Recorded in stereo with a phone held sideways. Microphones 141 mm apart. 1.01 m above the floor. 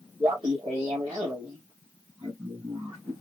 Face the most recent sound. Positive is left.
turn(degrees=-30)  # may be behind; listen again after turning